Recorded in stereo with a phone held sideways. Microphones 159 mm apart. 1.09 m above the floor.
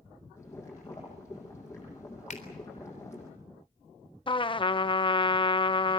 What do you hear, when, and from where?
0.4 s boiling: 15° left (ahead or behind), 9.5 m
2.3 s a finger snap: 50° left (ahead or behind), 3.5 m
4.3 s a trumpet: 30° left (ahead or behind), 0.7 m